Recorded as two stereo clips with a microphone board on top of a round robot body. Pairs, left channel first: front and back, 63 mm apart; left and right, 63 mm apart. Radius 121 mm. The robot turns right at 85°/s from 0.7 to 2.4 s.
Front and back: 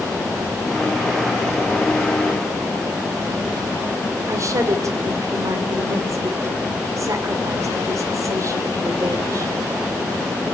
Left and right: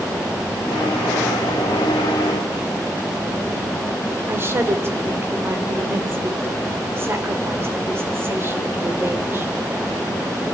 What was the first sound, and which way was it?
A woman speaking, 145° right.